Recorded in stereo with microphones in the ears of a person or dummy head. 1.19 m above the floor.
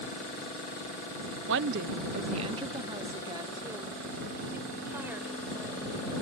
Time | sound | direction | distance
1.5 | a woman speaking | 70° right (ahead or behind) | ?